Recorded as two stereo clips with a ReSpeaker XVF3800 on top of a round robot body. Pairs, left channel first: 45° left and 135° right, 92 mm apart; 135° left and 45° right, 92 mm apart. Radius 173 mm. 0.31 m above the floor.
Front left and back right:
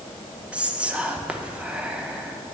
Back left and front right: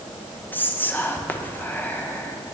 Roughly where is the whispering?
Behind.